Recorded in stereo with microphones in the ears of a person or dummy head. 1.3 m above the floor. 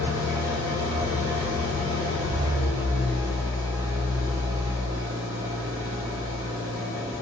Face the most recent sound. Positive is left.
turn(degrees=-5)  # may be behind; listen again after turning